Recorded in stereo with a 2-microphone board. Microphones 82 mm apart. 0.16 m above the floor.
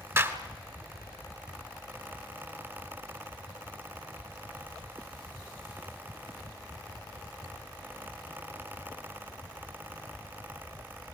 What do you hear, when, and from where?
0.2 s a clap: 35° right (ahead or behind), 1.7 m